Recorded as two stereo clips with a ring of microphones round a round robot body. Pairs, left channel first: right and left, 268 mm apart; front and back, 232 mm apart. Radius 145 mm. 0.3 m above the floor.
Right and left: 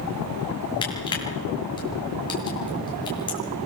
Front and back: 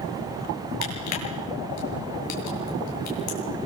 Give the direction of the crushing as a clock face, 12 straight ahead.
1 o'clock.